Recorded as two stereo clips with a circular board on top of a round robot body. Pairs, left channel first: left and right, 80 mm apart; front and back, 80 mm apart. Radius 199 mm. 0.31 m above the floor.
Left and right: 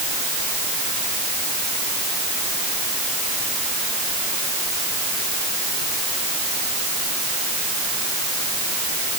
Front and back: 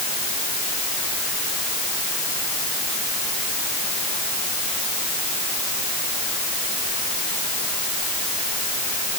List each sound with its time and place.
Only background noise.